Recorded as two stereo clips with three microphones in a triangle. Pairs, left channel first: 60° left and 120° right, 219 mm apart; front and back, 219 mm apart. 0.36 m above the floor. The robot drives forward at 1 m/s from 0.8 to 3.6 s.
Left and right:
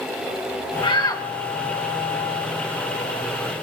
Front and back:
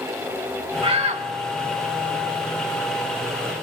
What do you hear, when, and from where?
0.8 s a shout: 120° left, 1.8 m; by 1.3 s 135° left, 2 m